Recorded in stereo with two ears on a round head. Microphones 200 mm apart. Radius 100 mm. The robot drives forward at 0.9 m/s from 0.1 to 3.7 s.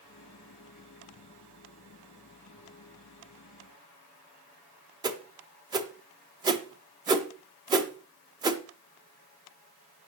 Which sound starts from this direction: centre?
A whoosh, at 5.0 s.